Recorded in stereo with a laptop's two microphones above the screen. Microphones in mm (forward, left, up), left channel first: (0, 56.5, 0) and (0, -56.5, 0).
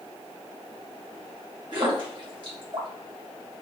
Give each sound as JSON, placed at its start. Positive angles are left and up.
{"t": 1.7, "sound": "a splash", "side_deg": -45, "distance_m": 1.9}